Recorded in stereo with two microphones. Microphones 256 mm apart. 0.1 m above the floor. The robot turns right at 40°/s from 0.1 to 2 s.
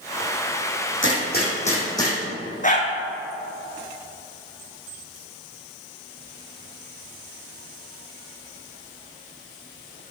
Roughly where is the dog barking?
Left.